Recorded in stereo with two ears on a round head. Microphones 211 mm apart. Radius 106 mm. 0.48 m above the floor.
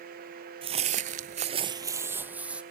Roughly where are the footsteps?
Right.